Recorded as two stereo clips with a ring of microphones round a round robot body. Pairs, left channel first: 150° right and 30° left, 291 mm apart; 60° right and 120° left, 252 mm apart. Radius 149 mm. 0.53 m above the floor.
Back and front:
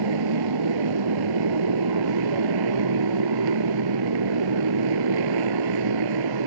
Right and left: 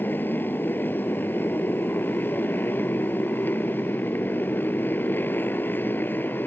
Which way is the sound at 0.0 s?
20° left.